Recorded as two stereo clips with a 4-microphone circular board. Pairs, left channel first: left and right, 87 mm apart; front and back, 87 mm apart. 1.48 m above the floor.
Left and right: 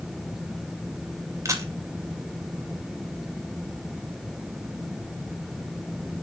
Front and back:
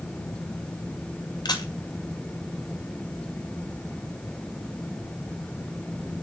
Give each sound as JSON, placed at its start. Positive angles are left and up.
{"t": 1.4, "sound": "a camera shutter", "azimuth_deg": -40, "distance_m": 2.0}